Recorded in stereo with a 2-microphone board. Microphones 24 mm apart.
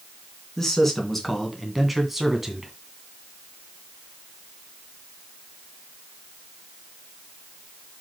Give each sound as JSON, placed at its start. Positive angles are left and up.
{"t": 0.6, "sound": "a man speaking", "side_deg": 15, "distance_m": 3.0}